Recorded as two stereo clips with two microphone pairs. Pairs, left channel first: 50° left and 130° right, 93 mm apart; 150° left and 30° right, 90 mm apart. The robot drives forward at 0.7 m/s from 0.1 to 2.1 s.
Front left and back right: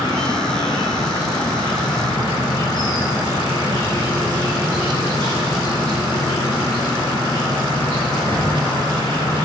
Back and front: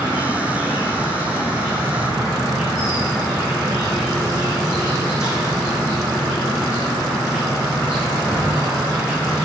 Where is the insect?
80° left, 6.5 m; by 9.5 s 95° left, 6.5 m.